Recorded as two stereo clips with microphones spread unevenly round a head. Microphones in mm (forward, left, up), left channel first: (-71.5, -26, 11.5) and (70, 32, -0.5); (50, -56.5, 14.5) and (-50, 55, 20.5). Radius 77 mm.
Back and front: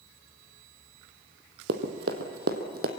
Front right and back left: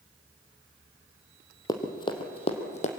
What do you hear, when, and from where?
1.7 s running footsteps: 20° left, 1.7 m; by 2.9 s 5° right, 1.9 m